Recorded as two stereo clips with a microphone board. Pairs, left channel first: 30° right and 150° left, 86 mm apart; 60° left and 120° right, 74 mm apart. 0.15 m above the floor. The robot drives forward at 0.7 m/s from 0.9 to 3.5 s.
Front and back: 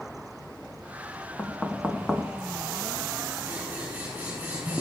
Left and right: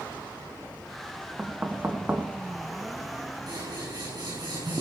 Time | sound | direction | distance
1.4 | knocking | 75° right | 1.4 m
3.5 | scissors | 135° right | 7 m